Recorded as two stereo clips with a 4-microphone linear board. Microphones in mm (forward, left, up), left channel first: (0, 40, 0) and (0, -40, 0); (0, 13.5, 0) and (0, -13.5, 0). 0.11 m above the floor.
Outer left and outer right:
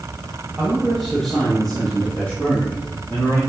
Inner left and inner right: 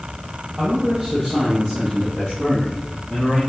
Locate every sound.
0.6 s a man speaking: 10° right (ahead or behind), 3 m; by 3.4 s 30° left (ahead or behind), 4 m